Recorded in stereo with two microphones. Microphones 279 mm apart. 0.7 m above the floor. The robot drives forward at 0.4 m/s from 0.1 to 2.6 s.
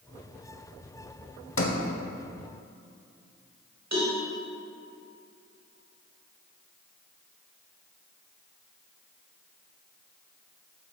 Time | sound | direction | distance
1.6 | a sliding door | 50° left (ahead or behind) | 0.7 m
3.9 | a cowbell | 70° right (ahead or behind) | 1.7 m